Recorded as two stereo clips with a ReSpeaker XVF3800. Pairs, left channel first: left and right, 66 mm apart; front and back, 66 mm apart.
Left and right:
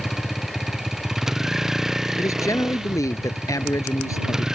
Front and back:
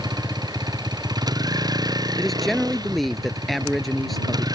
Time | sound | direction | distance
0.0 | a vehicle | 175° right | ?
2.2 | a man speaking | 85° left | ?